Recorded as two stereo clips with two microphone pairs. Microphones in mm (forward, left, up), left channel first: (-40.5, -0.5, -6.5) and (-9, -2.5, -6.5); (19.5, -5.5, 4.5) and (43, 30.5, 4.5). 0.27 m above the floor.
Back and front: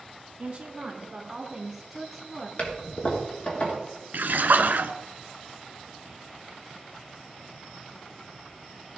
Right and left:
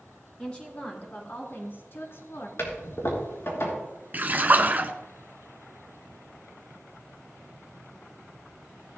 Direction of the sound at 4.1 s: 10° left.